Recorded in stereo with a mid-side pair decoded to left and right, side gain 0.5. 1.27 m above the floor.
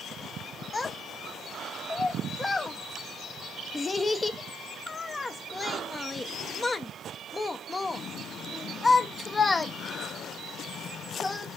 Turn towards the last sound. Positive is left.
turn(degrees=25)